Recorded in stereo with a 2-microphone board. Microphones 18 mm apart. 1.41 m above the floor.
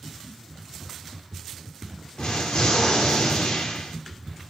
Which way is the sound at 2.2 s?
55° left (ahead or behind).